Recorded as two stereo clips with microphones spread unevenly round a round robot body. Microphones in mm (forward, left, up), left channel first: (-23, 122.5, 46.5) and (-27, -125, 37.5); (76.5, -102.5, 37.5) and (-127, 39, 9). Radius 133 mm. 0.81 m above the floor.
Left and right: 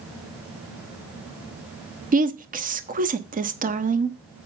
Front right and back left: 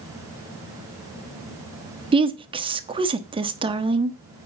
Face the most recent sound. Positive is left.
turn(degrees=-145)